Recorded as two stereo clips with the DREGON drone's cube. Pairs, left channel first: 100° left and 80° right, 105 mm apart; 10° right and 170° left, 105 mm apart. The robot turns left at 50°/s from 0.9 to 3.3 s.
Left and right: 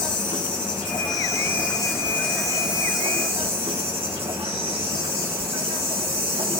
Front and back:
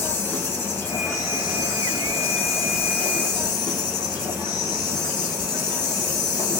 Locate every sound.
0.0 s an insect: 60° left, 0.9 m; by 6.6 s 60° right, 0.9 m